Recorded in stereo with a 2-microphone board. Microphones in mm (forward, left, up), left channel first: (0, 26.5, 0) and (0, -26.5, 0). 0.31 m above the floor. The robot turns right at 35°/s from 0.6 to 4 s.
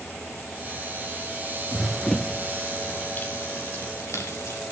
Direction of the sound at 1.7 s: Centre (ahead or behind).